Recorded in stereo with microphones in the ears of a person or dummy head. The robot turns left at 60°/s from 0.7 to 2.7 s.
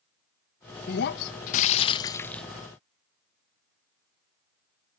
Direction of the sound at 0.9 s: 95° left.